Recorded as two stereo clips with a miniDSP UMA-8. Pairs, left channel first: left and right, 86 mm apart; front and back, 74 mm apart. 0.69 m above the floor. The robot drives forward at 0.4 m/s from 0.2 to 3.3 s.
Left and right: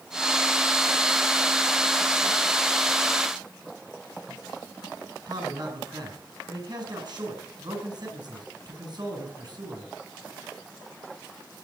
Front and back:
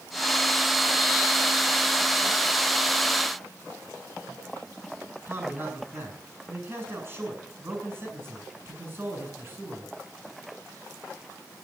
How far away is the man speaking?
About 7.5 m.